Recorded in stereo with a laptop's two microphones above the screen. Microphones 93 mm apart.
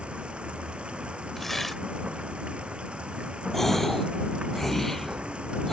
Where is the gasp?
5° left (ahead or behind).